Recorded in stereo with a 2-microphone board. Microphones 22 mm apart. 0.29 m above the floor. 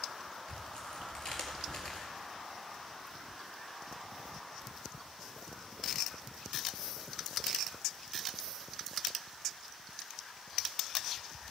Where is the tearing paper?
30° left (ahead or behind), 1.8 m.